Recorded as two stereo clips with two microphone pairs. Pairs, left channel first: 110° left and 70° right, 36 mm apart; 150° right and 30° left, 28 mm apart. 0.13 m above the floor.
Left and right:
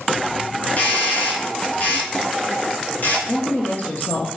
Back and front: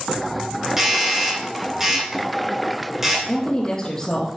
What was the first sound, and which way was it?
A doorbell, 95° left.